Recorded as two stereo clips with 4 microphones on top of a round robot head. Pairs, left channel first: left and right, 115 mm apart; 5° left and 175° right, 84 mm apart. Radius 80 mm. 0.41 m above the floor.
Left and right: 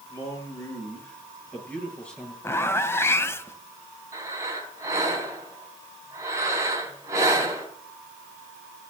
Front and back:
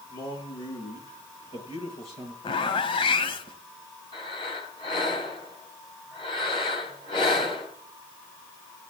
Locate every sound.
0.1 s a man speaking: 25° left, 7 m; by 2.3 s 10° left, 7.5 m
2.4 s a zipper: 20° left, 1.1 m
4.1 s breathing: 25° right, 3 m